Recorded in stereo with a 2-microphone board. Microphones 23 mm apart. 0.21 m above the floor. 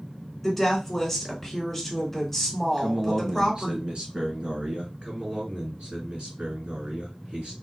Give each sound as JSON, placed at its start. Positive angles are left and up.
{"t": 0.4, "sound": "a woman speaking", "side_deg": 5, "distance_m": 1.8}
{"t": 2.8, "sound": "a man speaking", "side_deg": -45, "distance_m": 1.9}
{"t": 5.0, "sound": "a man speaking", "side_deg": -60, "distance_m": 2.5}